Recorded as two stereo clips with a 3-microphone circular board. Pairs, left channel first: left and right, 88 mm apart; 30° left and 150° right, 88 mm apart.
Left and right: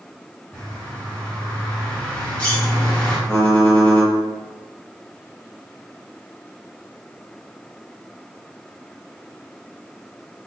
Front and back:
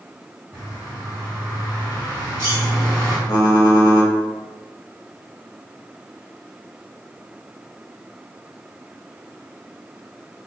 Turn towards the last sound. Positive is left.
turn(degrees=10)